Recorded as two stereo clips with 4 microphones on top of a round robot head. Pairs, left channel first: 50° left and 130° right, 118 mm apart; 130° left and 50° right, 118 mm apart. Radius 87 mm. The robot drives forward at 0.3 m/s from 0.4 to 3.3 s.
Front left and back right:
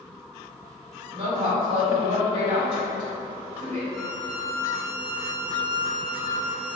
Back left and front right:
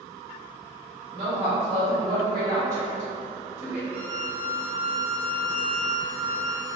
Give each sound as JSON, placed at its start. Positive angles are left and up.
{"t": 1.1, "sound": "a woman speaking", "azimuth_deg": -90, "distance_m": 1.5}
{"t": 3.9, "sound": "a violin", "azimuth_deg": -100, "distance_m": 1.1}